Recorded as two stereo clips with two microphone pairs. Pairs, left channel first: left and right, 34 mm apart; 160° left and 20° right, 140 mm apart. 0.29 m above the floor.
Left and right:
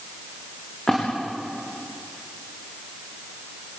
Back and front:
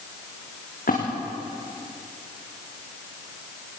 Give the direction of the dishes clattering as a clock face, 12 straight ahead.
I don't hear dishes clattering.